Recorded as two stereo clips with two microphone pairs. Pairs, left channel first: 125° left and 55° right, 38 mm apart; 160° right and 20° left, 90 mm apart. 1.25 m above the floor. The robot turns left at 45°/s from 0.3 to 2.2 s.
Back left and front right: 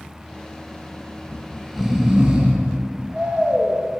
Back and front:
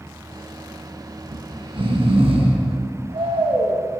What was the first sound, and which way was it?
Snoring, 60° left.